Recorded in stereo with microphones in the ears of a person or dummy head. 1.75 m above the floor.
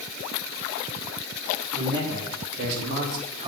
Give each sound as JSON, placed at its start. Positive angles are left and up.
{"t": 1.7, "sound": "a man speaking", "side_deg": -75, "distance_m": 4.0}